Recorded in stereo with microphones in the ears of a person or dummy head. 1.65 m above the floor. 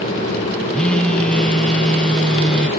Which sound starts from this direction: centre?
A phone buzzing, at 0.7 s.